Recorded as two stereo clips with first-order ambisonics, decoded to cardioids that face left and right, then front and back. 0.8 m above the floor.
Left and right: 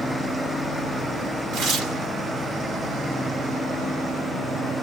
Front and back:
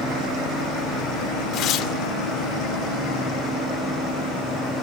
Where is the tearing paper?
40° right, 2.5 m.